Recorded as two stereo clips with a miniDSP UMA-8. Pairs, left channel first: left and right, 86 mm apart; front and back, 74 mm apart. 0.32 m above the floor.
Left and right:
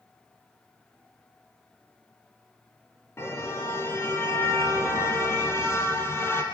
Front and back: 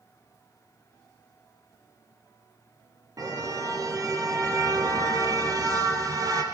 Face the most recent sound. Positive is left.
turn(degrees=150)